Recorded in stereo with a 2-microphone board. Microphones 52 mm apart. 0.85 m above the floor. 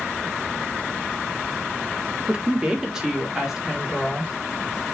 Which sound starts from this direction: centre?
A woman speaking, at 2.3 s.